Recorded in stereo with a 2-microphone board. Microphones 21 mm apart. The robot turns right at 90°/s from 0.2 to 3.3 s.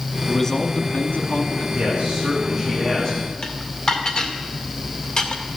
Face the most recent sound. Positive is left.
turn(degrees=40)  # may be behind; listen again after turning